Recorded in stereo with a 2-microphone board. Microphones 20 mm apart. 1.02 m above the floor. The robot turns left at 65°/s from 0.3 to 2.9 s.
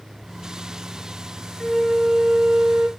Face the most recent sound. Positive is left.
turn(degrees=-80)